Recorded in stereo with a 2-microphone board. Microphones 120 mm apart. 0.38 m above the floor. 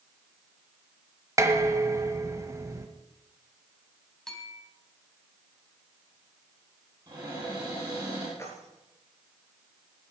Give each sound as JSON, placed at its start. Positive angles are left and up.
{"t": 1.4, "sound": "dishes clattering", "side_deg": -25, "distance_m": 1.3}
{"t": 4.3, "sound": "a bell", "side_deg": 5, "distance_m": 3.0}
{"t": 7.1, "sound": "a cupboard door", "side_deg": -30, "distance_m": 6.0}
{"t": 8.4, "sound": "keys jangling", "side_deg": 25, "distance_m": 3.5}